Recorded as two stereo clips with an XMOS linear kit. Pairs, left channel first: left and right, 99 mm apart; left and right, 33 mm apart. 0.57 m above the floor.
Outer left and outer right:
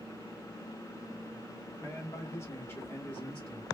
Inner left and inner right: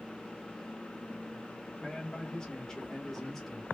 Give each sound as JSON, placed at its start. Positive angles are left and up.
{"t": 1.8, "sound": "a man speaking", "side_deg": 25, "distance_m": 1.2}